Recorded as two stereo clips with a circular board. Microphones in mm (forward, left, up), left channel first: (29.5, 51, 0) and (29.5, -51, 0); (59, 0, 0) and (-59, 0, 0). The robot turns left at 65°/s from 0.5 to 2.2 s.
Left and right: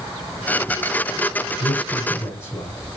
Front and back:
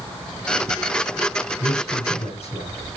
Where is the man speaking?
65° left, 5 m; by 2.7 s 25° left, 5 m.